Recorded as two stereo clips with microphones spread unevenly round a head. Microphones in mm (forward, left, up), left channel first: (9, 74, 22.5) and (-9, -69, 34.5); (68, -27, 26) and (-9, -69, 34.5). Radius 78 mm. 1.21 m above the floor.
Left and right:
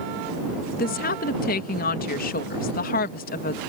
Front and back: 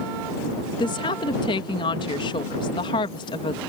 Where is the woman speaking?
65° left.